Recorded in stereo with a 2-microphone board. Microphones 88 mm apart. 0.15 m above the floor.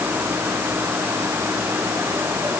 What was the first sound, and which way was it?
Only background noise.